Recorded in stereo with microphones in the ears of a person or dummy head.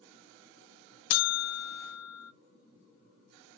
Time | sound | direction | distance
1.1 | a buzzer | 80° left | 0.7 m